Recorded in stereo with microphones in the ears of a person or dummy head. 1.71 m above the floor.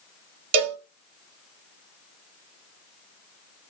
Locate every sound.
0.5 s a cowbell: 35° right (ahead or behind), 0.9 m